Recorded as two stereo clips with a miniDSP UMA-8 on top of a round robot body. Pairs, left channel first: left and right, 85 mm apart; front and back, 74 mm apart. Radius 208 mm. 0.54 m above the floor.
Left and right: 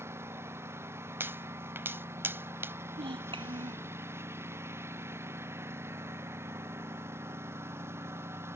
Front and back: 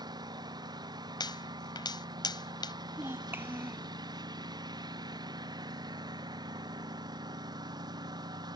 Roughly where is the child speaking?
Behind right.